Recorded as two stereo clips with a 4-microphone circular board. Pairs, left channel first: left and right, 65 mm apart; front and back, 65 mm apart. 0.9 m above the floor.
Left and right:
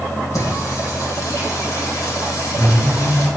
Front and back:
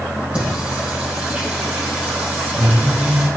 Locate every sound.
0.3 s singing: 110° left, 3.5 m